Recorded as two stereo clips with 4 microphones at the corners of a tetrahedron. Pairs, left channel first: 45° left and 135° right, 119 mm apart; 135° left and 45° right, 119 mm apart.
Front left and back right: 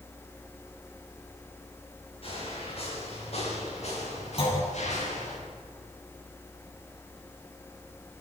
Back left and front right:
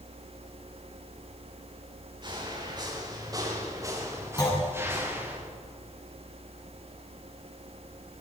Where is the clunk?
80° left, 9 m.